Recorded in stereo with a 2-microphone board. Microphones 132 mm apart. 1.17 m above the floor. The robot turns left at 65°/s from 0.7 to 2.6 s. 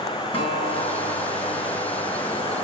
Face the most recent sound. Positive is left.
turn(degrees=10)